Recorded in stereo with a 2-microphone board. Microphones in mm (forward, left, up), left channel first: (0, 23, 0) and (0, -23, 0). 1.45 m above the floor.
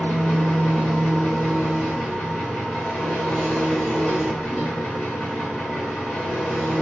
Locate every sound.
0.0 s an engine running: 35° left (ahead or behind), 1.9 m